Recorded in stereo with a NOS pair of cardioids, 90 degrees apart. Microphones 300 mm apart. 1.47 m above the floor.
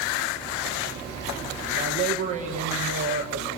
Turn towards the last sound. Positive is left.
turn(degrees=-65)